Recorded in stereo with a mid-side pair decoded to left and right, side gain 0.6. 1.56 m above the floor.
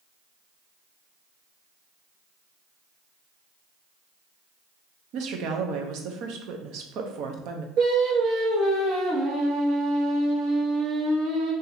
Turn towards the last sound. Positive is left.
turn(degrees=-60)